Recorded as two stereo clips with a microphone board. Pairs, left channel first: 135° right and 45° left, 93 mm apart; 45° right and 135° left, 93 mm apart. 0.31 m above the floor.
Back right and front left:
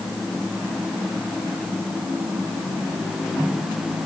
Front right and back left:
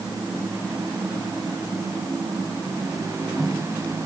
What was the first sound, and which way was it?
Only background noise.